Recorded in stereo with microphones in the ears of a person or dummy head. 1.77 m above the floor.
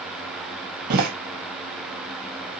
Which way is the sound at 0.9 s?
50° right (ahead or behind).